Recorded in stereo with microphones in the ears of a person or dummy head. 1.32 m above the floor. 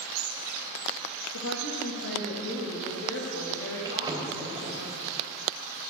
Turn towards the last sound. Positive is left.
turn(degrees=-15)  # may be behind; listen again after turning